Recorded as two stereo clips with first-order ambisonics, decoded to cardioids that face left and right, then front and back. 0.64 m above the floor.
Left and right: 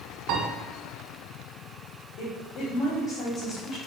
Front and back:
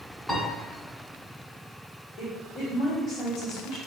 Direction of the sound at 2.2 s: 65° left.